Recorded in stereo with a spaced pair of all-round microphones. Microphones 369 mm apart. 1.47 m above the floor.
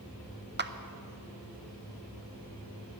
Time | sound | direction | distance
0.6 | a clap | 30° right (ahead or behind) | 0.6 m